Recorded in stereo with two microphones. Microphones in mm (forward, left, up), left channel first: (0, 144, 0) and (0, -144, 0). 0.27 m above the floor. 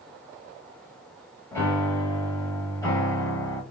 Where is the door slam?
No door slam in this recording.